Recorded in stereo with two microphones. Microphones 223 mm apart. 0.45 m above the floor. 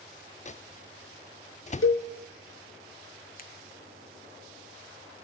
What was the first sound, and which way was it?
A microwave, 30° left (ahead or behind).